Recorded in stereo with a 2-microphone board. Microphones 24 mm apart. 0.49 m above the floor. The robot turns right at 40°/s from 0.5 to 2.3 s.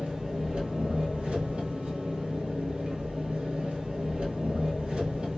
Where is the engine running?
130° right, 1.6 m; by 5.4 s 60° right, 1.6 m.